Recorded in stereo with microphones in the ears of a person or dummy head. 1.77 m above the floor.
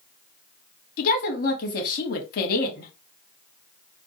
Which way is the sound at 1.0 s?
70° left (ahead or behind).